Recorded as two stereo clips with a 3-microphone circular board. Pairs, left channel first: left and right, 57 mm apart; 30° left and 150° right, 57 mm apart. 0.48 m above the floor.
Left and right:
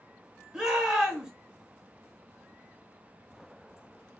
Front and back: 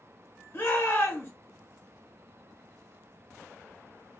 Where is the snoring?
No snoring in this recording.